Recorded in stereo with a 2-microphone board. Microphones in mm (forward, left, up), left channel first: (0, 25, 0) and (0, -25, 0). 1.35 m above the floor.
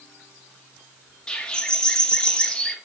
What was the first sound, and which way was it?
A bird, 15° left (ahead or behind).